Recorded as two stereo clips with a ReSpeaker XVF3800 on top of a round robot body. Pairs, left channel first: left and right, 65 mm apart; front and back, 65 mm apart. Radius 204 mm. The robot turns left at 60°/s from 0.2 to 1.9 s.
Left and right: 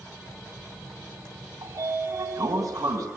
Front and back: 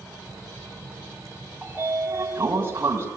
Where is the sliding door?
105° right, 3.5 m; by 3.1 s 125° right, 3.5 m.